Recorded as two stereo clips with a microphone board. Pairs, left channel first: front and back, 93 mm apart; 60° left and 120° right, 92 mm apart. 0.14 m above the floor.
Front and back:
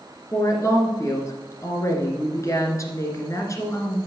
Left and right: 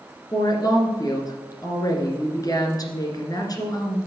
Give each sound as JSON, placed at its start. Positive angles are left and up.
{"t": 0.3, "sound": "a woman speaking", "azimuth_deg": 40, "distance_m": 1.9}